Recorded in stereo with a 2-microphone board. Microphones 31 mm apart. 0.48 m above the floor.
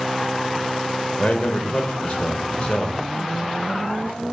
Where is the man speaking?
30° left (ahead or behind), 1.3 m.